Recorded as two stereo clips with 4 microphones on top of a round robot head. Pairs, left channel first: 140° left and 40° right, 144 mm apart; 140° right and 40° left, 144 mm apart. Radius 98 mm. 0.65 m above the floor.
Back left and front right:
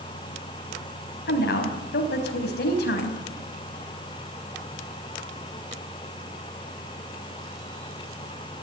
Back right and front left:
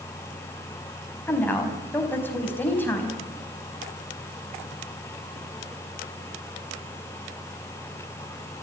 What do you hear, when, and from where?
1.3 s a woman speaking: 140° left, 5 m